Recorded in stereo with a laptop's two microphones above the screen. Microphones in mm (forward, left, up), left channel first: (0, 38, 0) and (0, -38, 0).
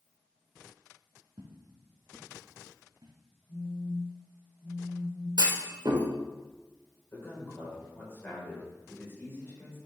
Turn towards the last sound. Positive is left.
turn(degrees=30)  # may be behind; listen again after turning